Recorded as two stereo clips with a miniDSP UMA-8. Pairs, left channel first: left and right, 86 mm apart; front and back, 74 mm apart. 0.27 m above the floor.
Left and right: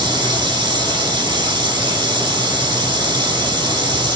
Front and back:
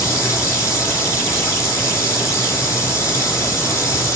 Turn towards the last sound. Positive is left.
turn(degrees=-55)